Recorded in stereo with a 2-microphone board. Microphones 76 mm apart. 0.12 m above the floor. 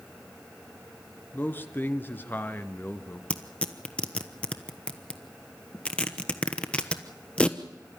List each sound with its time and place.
1.3 s a man speaking: 25° left (ahead or behind), 1.5 m
3.3 s tearing paper: 15° left (ahead or behind), 1.1 m